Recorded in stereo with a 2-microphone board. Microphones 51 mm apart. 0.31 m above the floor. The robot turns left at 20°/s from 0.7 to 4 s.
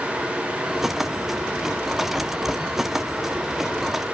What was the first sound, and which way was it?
Only background noise.